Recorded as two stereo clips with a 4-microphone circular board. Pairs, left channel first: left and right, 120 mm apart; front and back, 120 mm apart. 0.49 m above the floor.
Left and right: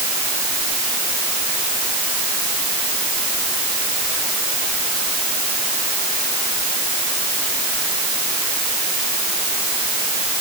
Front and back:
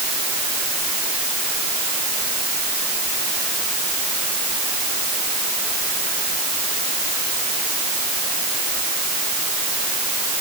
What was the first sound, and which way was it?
Only background noise.